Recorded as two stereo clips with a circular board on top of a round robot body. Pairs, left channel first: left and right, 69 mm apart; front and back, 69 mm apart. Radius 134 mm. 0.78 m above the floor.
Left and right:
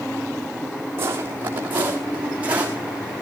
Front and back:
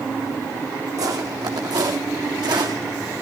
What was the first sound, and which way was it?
Footsteps, 145° right.